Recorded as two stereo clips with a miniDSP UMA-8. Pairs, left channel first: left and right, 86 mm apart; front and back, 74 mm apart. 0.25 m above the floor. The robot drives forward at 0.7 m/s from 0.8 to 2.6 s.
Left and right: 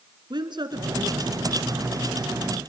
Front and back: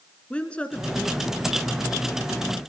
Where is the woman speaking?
70° right, 2.5 m; by 2.6 s 105° right, 2.5 m.